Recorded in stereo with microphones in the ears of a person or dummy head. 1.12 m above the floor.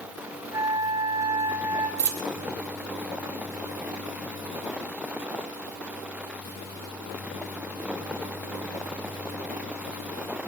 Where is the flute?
15° right (ahead or behind), 1.1 m.